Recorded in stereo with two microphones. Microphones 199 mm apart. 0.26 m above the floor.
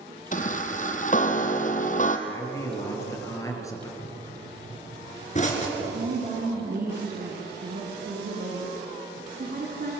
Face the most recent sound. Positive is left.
turn(degrees=-50)  # may be behind; listen again after turning